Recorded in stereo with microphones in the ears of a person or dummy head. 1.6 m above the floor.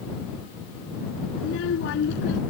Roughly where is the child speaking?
Left.